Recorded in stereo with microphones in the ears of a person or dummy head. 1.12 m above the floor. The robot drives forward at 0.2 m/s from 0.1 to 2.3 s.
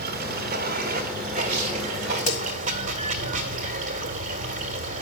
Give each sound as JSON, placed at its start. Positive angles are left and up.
{"t": 0.0, "sound": "running water", "side_deg": -45, "distance_m": 1.0}
{"t": 2.2, "sound": "a crack", "side_deg": 45, "distance_m": 2.0}